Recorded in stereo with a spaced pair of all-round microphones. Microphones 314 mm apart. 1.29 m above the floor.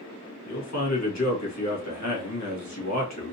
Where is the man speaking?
60° left (ahead or behind), 1.4 m.